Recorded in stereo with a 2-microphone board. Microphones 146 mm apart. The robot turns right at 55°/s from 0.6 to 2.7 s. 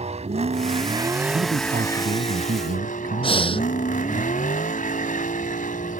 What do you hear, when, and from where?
0.0 s a vehicle: 50° right; by 6.0 s 65° left
1.3 s a man speaking: 145° right; by 4.2 s 70° right
3.2 s breathing: 40° left (ahead or behind)